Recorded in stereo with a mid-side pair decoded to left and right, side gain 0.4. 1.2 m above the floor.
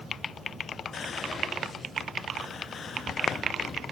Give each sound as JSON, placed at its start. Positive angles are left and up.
{"t": 0.9, "sound": "whispering", "azimuth_deg": 55, "distance_m": 0.6}